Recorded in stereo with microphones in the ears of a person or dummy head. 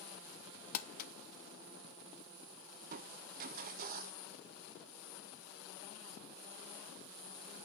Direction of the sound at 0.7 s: 55° left (ahead or behind).